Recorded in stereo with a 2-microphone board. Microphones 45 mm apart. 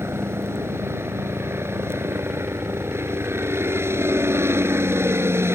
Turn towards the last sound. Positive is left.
turn(degrees=-70)  # may be behind; listen again after turning